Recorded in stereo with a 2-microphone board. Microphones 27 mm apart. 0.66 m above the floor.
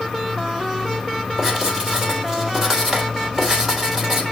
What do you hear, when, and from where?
1.4 s writing: 20° right (ahead or behind), 3 m